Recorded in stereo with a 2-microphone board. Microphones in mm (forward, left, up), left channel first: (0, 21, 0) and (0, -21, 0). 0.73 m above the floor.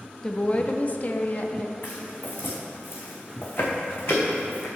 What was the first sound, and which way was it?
A woman speaking, 15° left (ahead or behind).